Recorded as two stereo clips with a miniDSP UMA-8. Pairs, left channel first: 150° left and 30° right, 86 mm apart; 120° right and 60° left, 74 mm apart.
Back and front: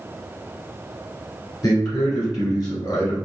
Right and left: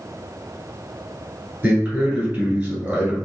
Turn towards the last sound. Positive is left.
turn(degrees=130)